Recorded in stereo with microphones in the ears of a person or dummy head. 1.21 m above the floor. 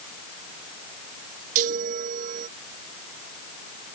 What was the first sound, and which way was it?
A chime, 45° right (ahead or behind).